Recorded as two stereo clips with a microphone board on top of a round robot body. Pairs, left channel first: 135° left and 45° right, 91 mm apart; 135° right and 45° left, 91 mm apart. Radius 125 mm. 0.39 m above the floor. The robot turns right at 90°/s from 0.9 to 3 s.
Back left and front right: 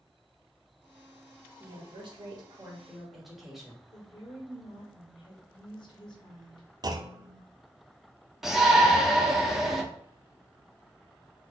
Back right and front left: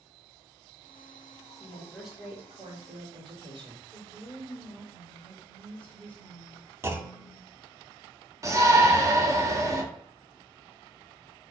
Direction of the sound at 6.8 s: 10° right.